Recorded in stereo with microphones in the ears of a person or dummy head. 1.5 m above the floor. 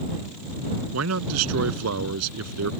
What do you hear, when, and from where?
0.9 s a man speaking: 85° right